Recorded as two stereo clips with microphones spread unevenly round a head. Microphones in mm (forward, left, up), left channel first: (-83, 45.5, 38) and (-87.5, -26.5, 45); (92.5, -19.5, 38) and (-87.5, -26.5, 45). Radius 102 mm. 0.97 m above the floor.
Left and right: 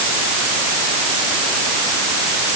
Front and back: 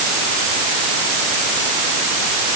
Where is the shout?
No shout in this recording.